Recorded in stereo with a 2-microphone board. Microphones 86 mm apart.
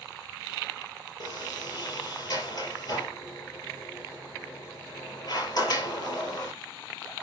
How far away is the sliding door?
About 5 m.